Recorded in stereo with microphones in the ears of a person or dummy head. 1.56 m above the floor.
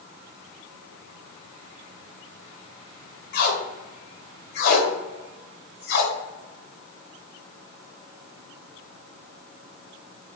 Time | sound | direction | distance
3.3 | tape being pulled | 60° left (ahead or behind) | 0.8 m